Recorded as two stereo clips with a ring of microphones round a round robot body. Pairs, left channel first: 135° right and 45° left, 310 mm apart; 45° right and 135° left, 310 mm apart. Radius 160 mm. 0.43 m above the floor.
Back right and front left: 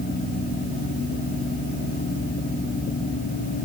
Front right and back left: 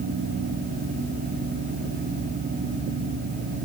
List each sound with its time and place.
Only background noise.